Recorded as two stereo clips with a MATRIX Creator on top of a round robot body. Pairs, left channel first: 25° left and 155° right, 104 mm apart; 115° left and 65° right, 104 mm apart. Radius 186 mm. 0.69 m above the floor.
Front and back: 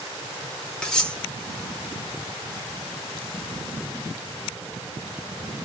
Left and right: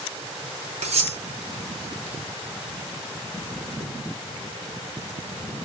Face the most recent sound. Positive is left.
turn(degrees=-60)